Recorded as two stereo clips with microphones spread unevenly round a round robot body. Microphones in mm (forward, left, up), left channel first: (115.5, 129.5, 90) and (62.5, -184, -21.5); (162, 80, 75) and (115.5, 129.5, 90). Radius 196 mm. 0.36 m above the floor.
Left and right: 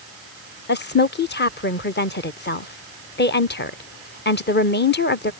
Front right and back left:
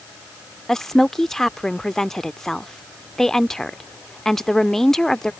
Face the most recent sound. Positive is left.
turn(degrees=15)